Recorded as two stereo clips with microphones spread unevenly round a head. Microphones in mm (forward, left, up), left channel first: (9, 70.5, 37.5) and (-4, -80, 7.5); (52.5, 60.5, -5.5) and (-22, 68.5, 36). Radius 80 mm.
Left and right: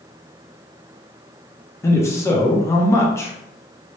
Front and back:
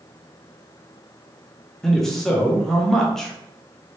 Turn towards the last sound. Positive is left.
turn(degrees=10)